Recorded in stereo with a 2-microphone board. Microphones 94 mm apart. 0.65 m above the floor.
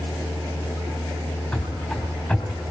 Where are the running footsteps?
10° left (ahead or behind), 3.5 m.